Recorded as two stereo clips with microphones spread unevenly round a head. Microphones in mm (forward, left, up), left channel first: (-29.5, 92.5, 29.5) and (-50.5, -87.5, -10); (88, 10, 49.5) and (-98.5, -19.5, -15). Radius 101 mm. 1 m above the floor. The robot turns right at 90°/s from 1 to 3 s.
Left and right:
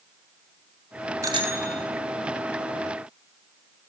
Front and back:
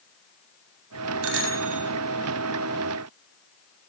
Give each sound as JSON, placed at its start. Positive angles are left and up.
{"t": 1.2, "sound": "a bicycle bell", "azimuth_deg": -170, "distance_m": 7.0}